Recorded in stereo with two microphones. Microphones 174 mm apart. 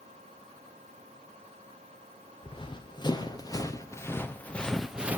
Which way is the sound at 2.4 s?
30° left (ahead or behind).